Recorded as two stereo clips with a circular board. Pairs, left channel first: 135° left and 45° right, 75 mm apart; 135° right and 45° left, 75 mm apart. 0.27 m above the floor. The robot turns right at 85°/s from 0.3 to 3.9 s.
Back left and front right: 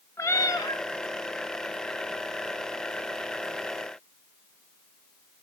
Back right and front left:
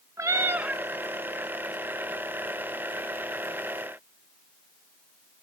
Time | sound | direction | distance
0.2 | a cat meowing | 90° left | 0.7 m